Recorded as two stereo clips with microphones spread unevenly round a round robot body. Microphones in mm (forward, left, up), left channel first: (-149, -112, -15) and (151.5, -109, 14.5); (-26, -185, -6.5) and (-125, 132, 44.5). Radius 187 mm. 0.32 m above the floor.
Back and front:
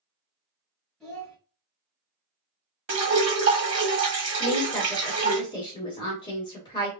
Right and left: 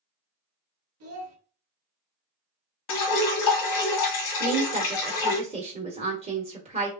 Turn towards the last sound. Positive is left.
turn(degrees=170)